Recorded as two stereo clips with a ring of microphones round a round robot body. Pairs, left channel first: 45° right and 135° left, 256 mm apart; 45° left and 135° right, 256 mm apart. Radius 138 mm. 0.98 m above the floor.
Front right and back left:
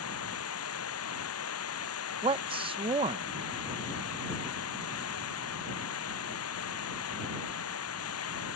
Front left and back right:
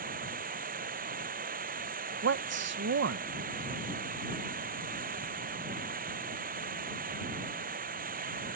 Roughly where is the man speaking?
Behind.